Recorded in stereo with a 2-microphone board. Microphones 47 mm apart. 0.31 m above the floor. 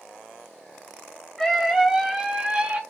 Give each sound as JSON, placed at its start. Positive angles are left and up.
{"t": 1.4, "sound": "a scream", "side_deg": 10, "distance_m": 1.2}